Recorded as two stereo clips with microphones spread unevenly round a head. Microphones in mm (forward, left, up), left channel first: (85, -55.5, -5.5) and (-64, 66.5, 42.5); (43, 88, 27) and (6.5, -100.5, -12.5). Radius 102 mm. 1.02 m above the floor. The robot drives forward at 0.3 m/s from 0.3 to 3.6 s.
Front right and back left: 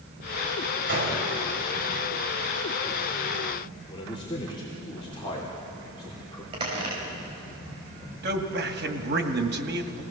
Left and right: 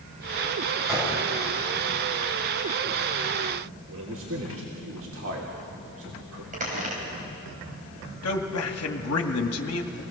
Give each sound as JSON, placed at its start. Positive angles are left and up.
{"t": 0.9, "sound": "a gunshot", "azimuth_deg": 175, "distance_m": 5.5}
{"t": 3.9, "sound": "a man speaking", "azimuth_deg": -105, "distance_m": 3.0}
{"t": 6.5, "sound": "a squeak", "azimuth_deg": -155, "distance_m": 5.0}
{"t": 8.2, "sound": "a man speaking", "azimuth_deg": 100, "distance_m": 2.0}